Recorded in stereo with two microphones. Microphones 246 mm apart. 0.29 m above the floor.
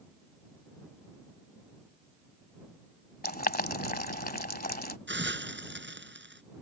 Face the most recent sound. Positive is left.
turn(degrees=-50)  # may be behind; listen again after turning